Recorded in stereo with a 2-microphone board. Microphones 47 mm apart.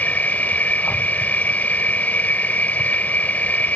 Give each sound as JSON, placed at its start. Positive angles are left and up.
{"t": 0.0, "sound": "an insect", "side_deg": 40}